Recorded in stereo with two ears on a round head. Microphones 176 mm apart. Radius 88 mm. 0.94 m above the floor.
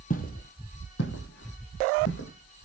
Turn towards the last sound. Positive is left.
turn(degrees=70)  # may be behind; listen again after turning